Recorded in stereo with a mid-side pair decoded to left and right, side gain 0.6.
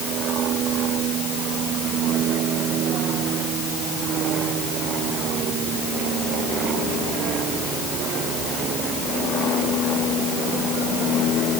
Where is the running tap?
I don't hear a running tap.